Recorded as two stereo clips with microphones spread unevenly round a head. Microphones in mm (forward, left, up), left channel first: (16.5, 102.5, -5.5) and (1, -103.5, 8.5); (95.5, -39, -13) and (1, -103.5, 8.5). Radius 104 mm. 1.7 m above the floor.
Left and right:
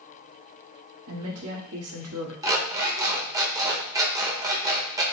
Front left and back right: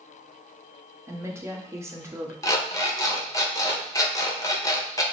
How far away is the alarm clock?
About 1.1 m.